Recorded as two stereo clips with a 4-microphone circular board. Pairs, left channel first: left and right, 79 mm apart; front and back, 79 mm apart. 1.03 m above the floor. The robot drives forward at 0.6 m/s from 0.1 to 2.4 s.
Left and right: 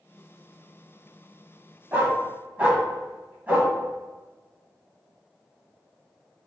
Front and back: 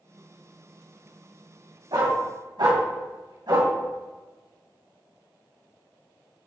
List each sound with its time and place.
1.9 s a dog barking: 160° right, 3 m